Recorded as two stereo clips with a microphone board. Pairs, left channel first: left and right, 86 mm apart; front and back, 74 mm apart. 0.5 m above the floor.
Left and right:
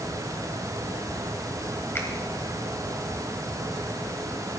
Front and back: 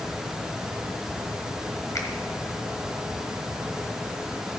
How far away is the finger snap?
About 1.8 m.